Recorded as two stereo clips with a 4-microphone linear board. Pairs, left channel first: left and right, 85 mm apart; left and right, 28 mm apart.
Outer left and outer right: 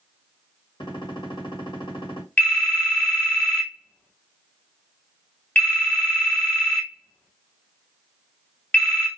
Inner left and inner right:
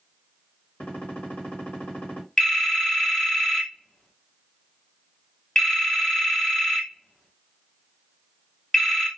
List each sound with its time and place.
0.8 s a gunshot: 70° left (ahead or behind), 1.5 m
2.4 s a phone ringing: 20° left (ahead or behind), 0.8 m